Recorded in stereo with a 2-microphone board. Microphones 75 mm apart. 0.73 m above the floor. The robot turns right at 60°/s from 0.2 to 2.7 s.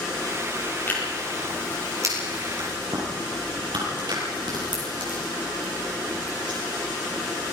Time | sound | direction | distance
0.9 | tearing paper | 25° left (ahead or behind) | 8.5 m